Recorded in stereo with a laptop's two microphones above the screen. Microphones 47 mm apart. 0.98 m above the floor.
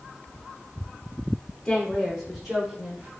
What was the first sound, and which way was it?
A woman speaking, 10° left (ahead or behind).